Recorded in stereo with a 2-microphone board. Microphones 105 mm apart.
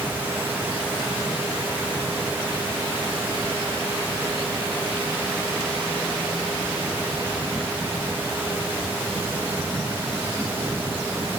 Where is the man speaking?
No man speaking in this recording.